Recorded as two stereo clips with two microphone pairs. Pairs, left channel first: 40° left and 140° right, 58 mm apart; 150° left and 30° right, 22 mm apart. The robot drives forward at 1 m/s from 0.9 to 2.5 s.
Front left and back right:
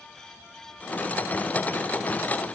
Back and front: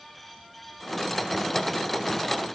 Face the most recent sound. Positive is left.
No sound to turn to.